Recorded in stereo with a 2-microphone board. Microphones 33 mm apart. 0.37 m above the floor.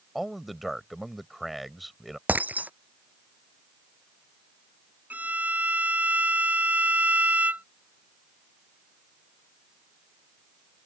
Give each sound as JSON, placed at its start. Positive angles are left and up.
{"t": 0.1, "sound": "a man speaking", "side_deg": 0}
{"t": 2.3, "sound": "breaking glass", "side_deg": -55}
{"t": 5.1, "sound": "a violin", "side_deg": -50}